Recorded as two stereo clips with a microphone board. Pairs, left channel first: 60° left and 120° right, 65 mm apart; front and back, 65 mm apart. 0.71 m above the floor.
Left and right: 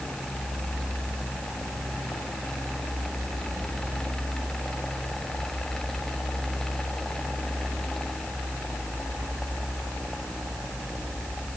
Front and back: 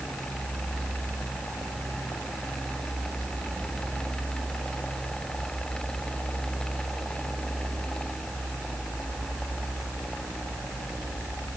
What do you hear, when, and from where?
Only background noise.